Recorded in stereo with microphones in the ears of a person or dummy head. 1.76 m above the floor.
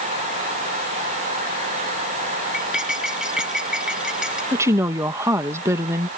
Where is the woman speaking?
15° right (ahead or behind).